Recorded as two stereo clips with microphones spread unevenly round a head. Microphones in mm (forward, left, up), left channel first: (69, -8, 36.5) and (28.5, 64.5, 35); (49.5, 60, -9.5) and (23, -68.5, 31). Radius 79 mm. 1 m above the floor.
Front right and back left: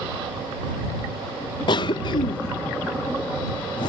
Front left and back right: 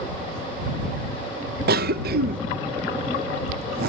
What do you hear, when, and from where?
1.7 s a cough: 90° right